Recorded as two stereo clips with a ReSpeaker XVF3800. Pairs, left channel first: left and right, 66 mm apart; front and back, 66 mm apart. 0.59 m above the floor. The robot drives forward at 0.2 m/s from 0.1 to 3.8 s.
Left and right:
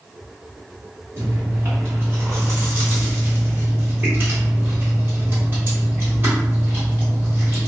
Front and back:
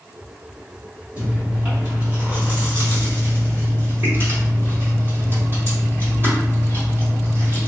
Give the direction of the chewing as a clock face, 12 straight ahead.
4 o'clock.